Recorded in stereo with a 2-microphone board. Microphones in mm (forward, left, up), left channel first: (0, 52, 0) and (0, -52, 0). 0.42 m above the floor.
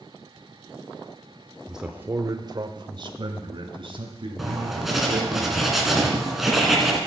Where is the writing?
5° right (ahead or behind), 2.5 m.